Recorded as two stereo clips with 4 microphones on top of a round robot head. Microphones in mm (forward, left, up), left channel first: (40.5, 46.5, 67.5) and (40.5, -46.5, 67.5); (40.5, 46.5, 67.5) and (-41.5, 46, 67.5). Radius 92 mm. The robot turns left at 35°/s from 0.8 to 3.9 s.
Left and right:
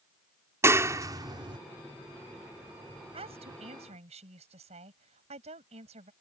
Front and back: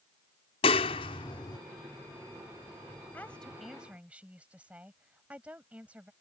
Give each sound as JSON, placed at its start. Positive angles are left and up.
{"t": 0.6, "sound": "a clap", "azimuth_deg": -30}
{"t": 3.1, "sound": "a woman speaking", "azimuth_deg": -75}